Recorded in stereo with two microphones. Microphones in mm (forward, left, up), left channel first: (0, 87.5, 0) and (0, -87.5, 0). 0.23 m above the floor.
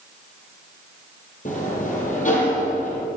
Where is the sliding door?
45° left (ahead or behind), 4 m.